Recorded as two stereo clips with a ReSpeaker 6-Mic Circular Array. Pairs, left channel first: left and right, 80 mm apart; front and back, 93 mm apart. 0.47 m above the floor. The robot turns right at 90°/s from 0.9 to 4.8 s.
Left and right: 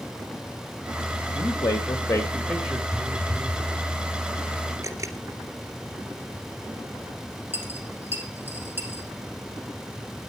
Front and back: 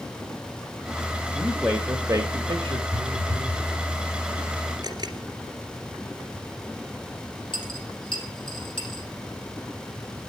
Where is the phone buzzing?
160° left, 0.9 m; by 3.7 s 135° right, 0.9 m.